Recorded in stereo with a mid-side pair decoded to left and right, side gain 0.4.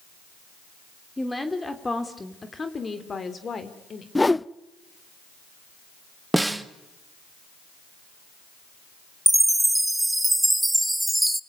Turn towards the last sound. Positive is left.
turn(degrees=-10)